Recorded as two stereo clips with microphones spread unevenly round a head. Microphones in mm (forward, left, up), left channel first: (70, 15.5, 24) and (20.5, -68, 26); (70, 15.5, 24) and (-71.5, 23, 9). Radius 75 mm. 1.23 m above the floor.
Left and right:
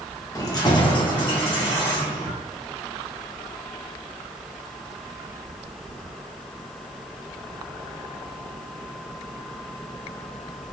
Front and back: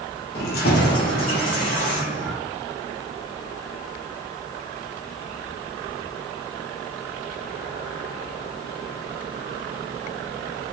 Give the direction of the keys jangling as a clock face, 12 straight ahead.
12 o'clock.